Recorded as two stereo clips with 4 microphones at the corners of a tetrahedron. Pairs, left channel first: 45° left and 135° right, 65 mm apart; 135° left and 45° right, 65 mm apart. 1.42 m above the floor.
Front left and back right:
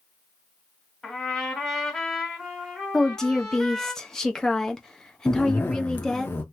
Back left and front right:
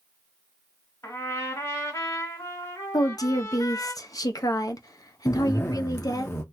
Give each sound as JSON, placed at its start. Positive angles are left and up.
{"t": 1.0, "sound": "a trumpet", "azimuth_deg": 135, "distance_m": 1.9}
{"t": 2.9, "sound": "a woman speaking", "azimuth_deg": 125, "distance_m": 0.6}
{"t": 5.3, "sound": "a zipper", "azimuth_deg": 95, "distance_m": 0.7}